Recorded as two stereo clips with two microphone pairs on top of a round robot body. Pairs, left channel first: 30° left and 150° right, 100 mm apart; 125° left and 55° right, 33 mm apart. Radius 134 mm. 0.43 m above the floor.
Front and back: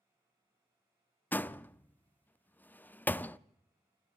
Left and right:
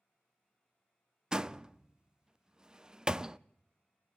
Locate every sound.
1.3 s a door slam: 30° right, 0.7 m